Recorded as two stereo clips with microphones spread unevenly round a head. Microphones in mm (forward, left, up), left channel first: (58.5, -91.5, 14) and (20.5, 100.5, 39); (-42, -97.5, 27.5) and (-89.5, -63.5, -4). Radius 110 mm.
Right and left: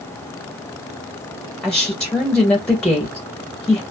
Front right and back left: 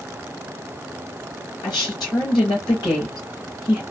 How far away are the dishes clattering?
No dishes clattering in this recording.